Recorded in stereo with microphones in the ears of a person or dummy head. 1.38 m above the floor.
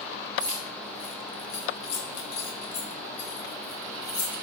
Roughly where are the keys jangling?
Right.